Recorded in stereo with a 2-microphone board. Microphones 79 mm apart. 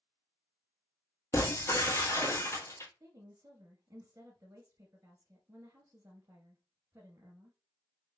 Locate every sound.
1.3 s breaking glass: 40° left (ahead or behind), 1.8 m
3.0 s a woman speaking: 40° right (ahead or behind), 1.9 m